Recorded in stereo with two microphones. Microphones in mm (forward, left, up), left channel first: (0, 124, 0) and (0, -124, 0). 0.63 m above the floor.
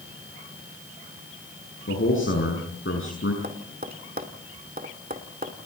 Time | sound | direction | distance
1.9 | a man speaking | 55° left (ahead or behind) | 6.5 m
3.4 | tapping | 35° right (ahead or behind) | 2 m